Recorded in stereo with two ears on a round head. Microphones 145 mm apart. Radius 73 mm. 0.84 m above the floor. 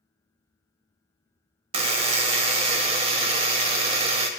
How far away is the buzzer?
About 0.7 m.